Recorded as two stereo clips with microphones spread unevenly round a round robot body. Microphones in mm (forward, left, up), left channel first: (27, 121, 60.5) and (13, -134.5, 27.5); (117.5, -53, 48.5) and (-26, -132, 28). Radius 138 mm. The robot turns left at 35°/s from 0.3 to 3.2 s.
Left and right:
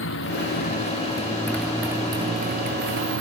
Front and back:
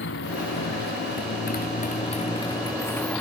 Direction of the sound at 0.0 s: 45° left.